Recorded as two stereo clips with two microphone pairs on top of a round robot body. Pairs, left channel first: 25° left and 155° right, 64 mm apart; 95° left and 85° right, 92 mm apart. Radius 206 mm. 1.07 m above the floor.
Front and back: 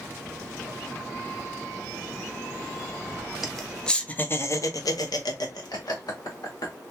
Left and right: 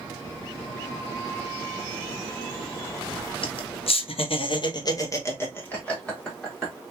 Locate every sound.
3.4 s laughter: 120° left, 0.9 m; by 6.7 s 5° left, 1.5 m